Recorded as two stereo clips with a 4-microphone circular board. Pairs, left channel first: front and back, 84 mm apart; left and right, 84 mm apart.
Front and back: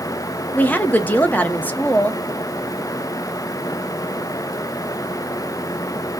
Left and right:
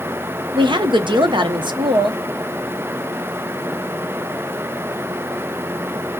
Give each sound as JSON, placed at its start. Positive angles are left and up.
{"t": 0.5, "sound": "a woman speaking", "azimuth_deg": -70, "distance_m": 0.8}